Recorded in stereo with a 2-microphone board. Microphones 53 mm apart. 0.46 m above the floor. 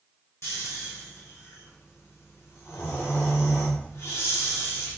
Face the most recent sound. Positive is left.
turn(degrees=55)  # may be behind; listen again after turning